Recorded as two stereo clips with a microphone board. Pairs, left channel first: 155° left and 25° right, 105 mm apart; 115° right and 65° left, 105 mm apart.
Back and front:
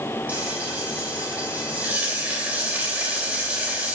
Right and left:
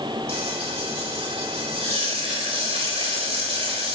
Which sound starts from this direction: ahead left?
Frying, at 0.3 s.